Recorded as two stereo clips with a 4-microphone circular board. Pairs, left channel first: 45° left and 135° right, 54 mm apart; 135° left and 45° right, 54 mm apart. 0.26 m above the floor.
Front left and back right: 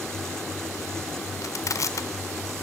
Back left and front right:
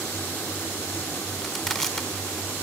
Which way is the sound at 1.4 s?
55° left.